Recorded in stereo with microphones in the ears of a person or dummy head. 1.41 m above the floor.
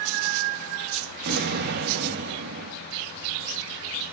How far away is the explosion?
About 1.6 m.